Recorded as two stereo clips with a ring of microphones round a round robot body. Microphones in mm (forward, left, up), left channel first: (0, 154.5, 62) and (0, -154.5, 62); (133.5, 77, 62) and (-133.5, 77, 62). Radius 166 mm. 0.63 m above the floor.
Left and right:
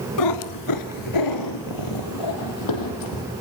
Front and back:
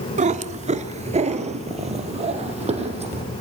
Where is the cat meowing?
120° left, 1.0 m; by 3.2 s 115° left, 5 m.